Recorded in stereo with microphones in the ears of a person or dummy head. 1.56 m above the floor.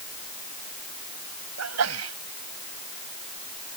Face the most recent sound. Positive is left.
turn(degrees=-85)